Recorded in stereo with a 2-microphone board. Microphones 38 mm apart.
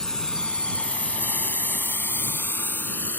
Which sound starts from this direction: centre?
A drone, at 0.0 s.